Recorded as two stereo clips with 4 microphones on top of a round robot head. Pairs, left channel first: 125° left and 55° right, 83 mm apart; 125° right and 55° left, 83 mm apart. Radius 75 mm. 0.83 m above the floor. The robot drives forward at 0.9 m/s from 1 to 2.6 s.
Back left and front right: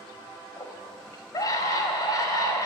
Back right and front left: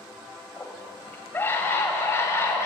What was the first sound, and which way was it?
A scream, 165° left.